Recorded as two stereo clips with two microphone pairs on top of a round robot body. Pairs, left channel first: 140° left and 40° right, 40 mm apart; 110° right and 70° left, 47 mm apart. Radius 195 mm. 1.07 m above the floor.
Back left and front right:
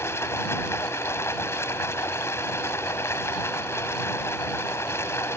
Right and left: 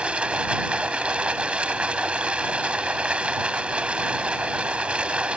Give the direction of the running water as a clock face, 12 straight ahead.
7 o'clock.